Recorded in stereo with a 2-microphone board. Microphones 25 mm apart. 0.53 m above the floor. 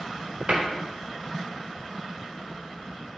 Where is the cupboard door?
50° right (ahead or behind), 1.0 m.